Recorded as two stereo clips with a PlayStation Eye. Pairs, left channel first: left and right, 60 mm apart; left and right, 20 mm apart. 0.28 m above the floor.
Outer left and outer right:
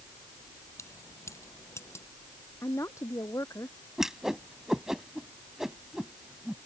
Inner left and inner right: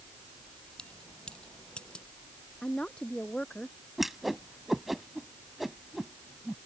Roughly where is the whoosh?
Centre.